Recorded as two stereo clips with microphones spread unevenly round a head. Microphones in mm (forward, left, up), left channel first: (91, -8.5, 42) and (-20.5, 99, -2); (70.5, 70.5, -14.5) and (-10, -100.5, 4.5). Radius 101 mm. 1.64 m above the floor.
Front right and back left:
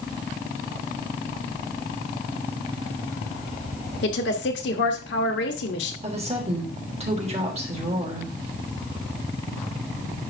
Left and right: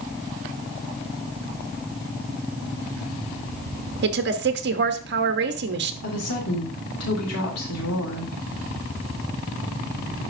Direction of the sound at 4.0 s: 85° right.